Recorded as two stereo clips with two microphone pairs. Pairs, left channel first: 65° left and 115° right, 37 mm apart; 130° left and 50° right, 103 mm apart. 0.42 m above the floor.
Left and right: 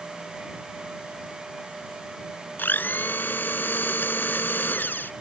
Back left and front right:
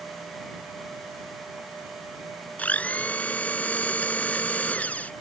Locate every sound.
2.6 s a blender: 55° left